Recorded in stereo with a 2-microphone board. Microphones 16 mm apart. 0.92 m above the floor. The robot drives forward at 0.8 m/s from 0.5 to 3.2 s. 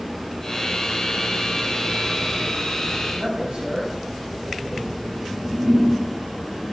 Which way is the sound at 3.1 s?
85° right.